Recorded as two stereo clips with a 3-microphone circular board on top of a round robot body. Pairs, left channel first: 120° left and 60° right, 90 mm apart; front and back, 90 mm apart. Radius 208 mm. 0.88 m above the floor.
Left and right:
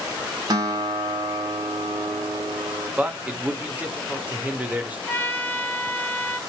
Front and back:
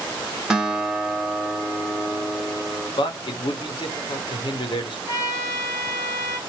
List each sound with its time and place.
0.5 s a guitar: 95° right, 1.4 m
3.0 s a man speaking: 15° left, 1.1 m
5.1 s a trumpet: 50° left, 1.3 m